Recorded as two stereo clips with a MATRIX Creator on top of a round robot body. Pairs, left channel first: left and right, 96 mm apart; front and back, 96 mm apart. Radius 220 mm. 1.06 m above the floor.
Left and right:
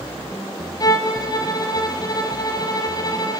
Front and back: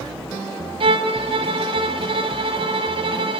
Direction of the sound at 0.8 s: 145° left.